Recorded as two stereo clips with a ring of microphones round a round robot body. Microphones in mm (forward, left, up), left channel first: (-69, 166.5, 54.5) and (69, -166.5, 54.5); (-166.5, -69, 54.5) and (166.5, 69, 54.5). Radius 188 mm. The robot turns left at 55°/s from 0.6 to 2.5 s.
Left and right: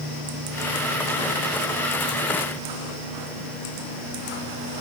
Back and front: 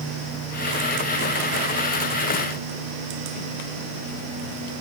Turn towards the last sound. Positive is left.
No sound to turn to.